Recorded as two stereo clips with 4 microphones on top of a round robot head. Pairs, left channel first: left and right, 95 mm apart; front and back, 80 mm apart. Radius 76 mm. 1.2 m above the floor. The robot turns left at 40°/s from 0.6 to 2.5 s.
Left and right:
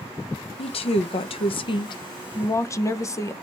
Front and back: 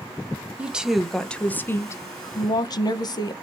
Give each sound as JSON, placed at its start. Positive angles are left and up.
{"t": 0.6, "sound": "a woman speaking", "azimuth_deg": 110, "distance_m": 0.9}